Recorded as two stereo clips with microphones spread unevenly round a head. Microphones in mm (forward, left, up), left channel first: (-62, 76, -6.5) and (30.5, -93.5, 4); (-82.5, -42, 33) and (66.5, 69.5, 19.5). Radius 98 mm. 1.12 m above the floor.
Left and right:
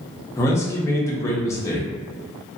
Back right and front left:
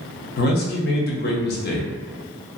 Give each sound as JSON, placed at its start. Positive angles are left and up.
{"t": 0.4, "sound": "a man speaking", "azimuth_deg": -170, "distance_m": 0.8}